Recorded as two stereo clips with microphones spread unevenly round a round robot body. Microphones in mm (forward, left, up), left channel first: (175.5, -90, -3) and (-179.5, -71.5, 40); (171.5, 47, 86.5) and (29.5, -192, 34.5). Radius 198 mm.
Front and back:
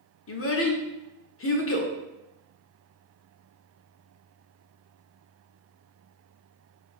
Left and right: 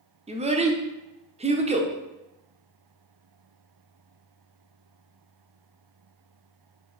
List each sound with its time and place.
0.3 s a child speaking: 55° right, 0.8 m